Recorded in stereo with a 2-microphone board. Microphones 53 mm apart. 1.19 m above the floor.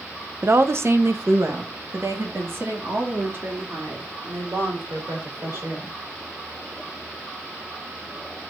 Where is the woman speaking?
55° right (ahead or behind), 0.8 m; by 6.0 s 50° right (ahead or behind), 5.5 m.